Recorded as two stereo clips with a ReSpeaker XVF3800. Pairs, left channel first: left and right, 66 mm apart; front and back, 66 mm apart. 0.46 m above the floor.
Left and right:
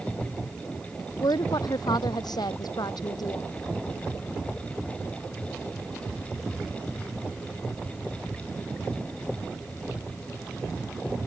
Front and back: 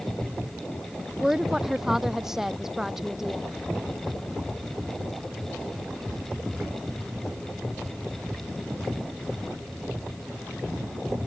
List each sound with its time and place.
1.2 s a woman speaking: 95° left